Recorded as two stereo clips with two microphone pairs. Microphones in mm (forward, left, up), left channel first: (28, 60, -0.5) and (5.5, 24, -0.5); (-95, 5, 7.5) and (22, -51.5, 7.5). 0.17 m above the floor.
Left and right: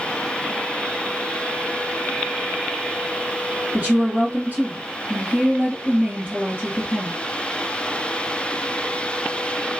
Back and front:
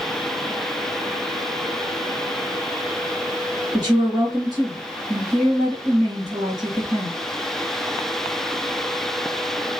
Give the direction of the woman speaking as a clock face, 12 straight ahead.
3 o'clock.